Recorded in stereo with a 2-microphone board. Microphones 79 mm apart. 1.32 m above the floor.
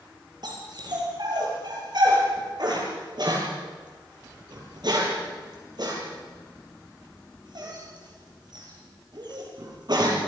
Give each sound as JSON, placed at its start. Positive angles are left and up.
{"t": 0.4, "sound": "a dog barking", "side_deg": -60, "distance_m": 7.0}